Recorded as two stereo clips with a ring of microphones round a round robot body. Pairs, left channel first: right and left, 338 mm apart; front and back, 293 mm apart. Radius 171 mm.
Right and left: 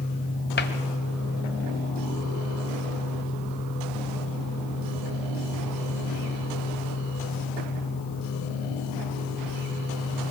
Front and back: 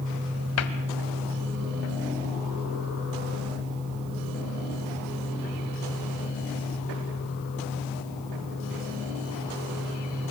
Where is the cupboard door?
35° right, 1.4 m.